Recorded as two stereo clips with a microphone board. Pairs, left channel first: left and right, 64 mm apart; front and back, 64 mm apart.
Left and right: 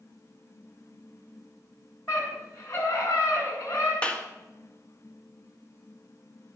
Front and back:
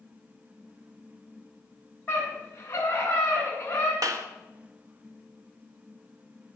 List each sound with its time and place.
2.1 s a scream: 60° left, 7 m
4.0 s a clap: 160° left, 1.8 m